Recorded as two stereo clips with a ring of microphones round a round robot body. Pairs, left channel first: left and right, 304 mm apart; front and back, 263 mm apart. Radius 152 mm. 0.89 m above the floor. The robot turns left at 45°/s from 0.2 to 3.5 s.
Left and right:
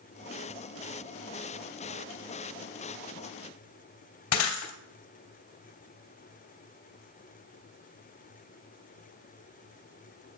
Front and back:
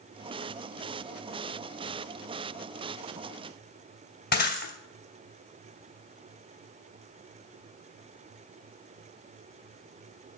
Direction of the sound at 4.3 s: 55° left.